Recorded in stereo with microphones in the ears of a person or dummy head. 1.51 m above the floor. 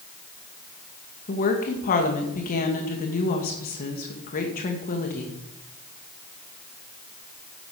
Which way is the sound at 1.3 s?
45° left (ahead or behind).